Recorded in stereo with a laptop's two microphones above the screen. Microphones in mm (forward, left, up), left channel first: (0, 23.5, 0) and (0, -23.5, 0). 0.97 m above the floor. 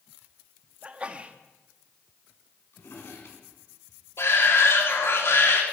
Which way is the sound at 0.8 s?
25° right (ahead or behind).